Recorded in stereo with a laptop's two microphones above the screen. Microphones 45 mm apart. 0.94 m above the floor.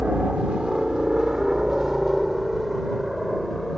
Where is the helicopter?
25° right (ahead or behind); by 3.8 s centre (ahead or behind).